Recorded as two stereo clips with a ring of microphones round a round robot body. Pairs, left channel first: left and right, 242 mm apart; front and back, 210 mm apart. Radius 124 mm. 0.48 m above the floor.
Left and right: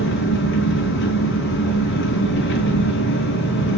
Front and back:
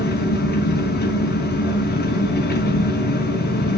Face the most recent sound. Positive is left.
turn(degrees=45)